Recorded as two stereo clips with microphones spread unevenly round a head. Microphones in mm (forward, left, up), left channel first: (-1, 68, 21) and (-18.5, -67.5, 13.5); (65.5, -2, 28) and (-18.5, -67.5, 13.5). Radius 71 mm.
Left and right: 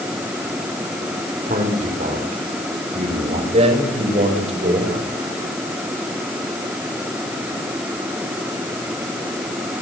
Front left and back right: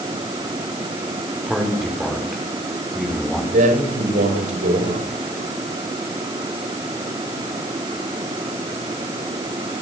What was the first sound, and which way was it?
A man speaking, 55° right.